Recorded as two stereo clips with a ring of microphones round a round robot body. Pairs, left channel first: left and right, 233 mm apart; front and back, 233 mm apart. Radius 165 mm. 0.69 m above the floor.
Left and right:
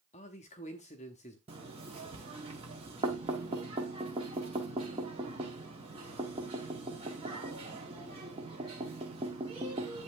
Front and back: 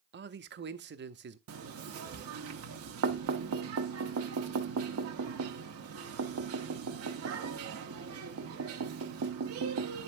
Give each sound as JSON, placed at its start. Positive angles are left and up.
{"t": 0.1, "sound": "a man speaking", "azimuth_deg": 150, "distance_m": 0.8}
{"t": 1.5, "sound": "knocking", "azimuth_deg": -160, "distance_m": 0.9}